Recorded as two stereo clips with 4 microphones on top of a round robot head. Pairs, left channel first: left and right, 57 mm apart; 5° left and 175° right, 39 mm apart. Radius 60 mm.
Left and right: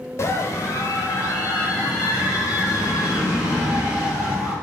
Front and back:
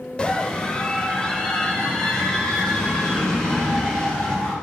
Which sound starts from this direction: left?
A scream, at 0.2 s.